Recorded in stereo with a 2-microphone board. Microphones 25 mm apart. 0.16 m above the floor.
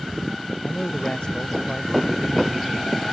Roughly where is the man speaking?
Left.